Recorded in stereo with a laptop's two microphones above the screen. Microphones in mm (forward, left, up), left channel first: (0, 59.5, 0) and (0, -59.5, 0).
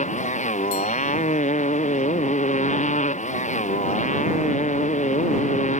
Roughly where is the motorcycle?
Left.